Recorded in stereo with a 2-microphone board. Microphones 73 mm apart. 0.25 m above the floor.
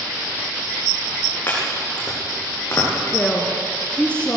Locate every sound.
1.5 s chopping: 30° left (ahead or behind), 8 m
3.1 s a woman speaking: 15° left (ahead or behind), 3 m